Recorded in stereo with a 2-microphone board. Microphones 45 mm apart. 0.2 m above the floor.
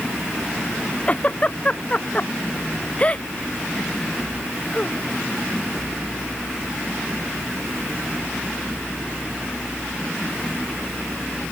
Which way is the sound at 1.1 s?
25° left (ahead or behind).